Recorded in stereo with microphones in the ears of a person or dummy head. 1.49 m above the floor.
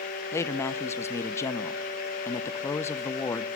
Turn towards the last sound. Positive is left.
turn(degrees=20)  # may be behind; listen again after turning